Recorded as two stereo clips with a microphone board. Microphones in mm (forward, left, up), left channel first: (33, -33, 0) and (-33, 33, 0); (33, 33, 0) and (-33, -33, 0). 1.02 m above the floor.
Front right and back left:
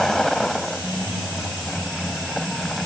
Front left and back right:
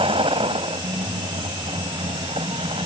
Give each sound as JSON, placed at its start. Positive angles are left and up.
{"t": 0.0, "sound": "a vehicle", "azimuth_deg": -130}